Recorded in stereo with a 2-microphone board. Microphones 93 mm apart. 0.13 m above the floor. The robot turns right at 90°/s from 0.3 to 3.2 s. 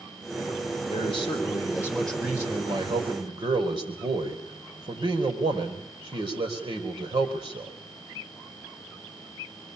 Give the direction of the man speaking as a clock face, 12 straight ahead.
10 o'clock.